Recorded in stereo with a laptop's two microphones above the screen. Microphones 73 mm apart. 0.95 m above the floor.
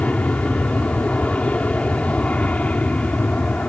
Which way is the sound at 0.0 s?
20° left (ahead or behind).